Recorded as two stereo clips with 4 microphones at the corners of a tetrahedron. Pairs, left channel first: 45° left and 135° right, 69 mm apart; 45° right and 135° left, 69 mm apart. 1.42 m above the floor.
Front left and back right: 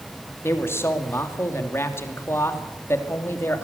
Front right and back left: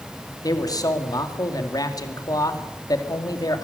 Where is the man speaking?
10° right, 2.5 m.